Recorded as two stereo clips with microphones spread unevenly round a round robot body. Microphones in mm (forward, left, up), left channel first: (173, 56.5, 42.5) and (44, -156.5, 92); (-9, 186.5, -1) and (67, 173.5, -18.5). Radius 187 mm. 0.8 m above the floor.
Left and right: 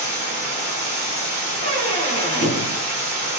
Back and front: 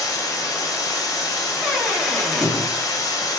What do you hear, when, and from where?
0.0 s running water: 120° left, 0.9 m
1.6 s a squeak: 85° left, 1.1 m